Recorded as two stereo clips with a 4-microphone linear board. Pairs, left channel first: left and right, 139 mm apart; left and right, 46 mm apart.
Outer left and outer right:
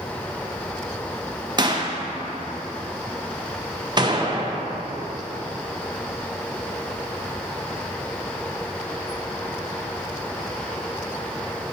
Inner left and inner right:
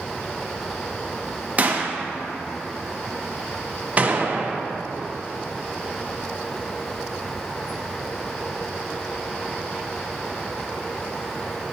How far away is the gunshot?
About 0.7 m.